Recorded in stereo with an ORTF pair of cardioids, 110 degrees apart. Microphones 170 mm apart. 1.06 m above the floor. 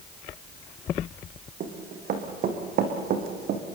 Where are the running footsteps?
60° right, 5 m; by 3.6 s 65° right, 4 m.